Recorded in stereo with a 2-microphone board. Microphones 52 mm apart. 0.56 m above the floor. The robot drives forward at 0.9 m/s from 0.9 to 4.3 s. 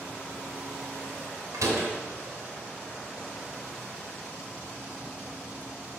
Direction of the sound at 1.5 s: 85° right.